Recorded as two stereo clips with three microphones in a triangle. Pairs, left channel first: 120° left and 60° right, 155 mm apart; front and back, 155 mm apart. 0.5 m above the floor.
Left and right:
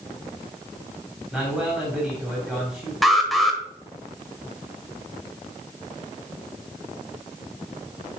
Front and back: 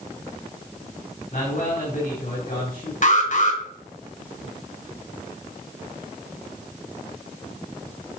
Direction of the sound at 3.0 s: 30° left.